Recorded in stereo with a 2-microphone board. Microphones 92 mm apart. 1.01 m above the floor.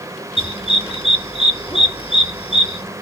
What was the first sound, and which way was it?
A dog barking, 85° left.